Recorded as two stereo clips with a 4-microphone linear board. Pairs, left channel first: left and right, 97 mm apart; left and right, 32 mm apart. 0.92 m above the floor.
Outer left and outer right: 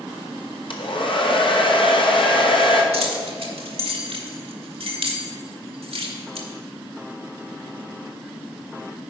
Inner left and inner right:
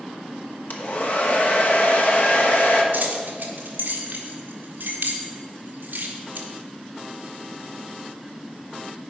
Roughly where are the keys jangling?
Right.